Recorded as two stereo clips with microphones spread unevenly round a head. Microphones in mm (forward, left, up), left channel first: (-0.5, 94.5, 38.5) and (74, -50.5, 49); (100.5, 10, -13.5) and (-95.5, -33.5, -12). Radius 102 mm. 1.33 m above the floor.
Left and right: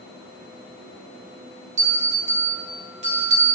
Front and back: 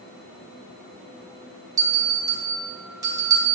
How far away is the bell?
About 1.2 m.